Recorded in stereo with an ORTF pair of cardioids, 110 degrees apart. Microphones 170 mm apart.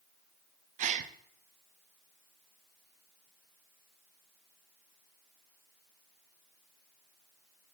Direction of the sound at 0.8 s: 50° right.